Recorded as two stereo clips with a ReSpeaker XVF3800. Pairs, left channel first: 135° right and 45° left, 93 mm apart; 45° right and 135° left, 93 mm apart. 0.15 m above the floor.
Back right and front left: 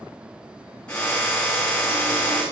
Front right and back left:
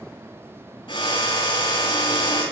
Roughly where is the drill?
Ahead right.